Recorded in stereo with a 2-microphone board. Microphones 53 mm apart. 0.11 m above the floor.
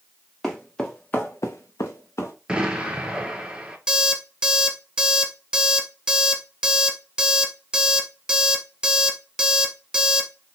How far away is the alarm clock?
About 1.2 m.